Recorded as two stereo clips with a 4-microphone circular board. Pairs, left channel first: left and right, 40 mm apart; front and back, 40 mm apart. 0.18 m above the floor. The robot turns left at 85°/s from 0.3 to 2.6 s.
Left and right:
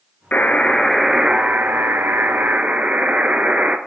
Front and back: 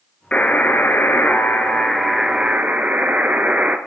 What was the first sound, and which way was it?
A buzzer, 55° left.